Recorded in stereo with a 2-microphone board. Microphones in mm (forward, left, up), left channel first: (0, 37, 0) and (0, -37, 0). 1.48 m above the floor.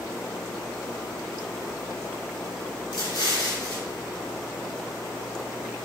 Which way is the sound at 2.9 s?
65° left (ahead or behind).